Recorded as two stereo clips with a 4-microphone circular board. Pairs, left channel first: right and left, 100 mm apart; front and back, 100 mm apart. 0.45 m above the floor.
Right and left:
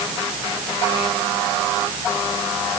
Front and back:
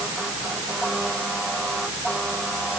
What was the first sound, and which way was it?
Only background noise.